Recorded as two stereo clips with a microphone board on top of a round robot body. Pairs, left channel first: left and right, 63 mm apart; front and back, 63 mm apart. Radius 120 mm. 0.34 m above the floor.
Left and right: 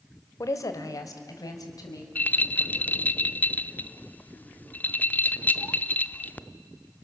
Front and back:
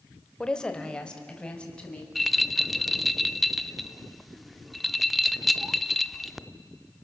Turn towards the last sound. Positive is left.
turn(degrees=90)